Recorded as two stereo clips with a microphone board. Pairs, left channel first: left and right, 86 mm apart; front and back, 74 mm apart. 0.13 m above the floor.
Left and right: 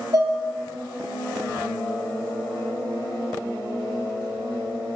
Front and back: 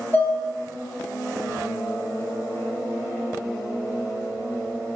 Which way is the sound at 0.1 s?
50° right.